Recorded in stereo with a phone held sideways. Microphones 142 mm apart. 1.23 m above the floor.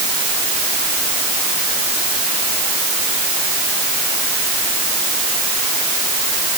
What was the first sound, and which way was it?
Only background noise.